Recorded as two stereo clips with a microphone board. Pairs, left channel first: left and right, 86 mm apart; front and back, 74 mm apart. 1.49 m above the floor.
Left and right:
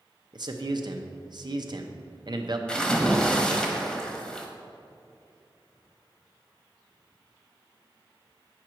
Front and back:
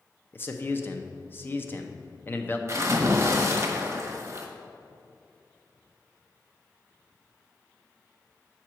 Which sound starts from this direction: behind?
A splash, at 2.7 s.